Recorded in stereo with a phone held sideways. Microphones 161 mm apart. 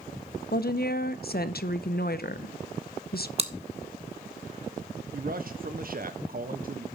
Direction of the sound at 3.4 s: 40° right (ahead or behind).